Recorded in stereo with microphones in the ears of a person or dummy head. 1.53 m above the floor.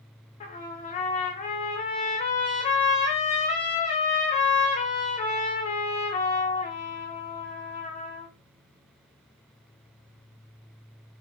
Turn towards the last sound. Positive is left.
turn(degrees=30)  # may be behind; listen again after turning